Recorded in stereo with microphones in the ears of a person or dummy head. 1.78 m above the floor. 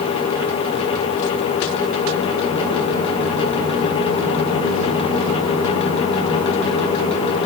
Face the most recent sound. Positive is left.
No sound to turn to.